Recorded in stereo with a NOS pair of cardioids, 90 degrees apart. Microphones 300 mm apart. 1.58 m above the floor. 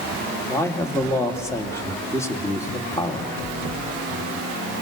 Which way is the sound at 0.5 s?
10° left.